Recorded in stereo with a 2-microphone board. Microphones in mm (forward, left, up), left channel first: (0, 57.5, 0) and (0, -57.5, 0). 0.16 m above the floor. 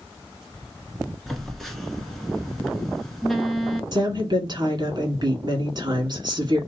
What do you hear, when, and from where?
1.3 s a phone buzzing: 5° left (ahead or behind), 0.9 m
3.9 s a woman speaking: 40° right (ahead or behind), 1.6 m